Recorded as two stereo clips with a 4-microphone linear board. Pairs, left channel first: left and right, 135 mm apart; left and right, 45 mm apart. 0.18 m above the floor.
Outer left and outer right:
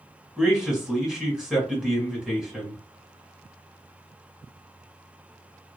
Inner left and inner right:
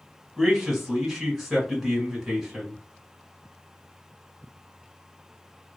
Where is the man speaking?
5° right (ahead or behind), 1.1 m.